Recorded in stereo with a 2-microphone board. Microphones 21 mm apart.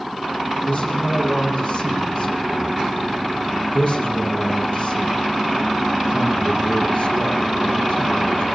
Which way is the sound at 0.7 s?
75° left (ahead or behind).